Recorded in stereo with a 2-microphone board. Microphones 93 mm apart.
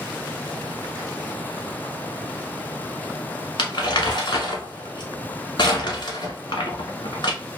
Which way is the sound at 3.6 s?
65° left (ahead or behind).